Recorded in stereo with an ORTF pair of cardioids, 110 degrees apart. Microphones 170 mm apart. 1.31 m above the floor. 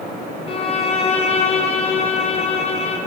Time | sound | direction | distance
0.5 | a violin | 35° left | 1.5 m